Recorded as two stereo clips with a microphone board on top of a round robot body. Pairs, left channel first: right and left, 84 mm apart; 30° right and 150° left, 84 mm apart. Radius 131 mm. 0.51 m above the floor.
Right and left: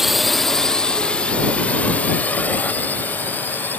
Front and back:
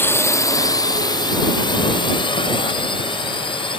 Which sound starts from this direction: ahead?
A drone, at 0.0 s.